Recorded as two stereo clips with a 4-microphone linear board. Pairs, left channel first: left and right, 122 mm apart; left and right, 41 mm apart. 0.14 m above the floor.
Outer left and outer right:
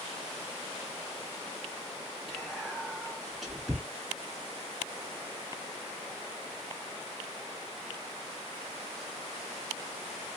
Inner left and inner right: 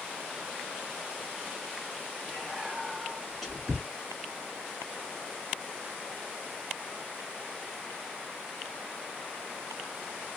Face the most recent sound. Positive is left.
turn(degrees=0)  # may be behind; listen again after turning